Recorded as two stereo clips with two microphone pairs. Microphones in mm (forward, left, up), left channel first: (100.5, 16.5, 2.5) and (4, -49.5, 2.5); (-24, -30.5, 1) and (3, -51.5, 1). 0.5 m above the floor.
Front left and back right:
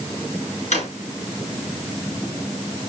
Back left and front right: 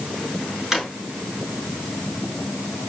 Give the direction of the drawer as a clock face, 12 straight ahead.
11 o'clock.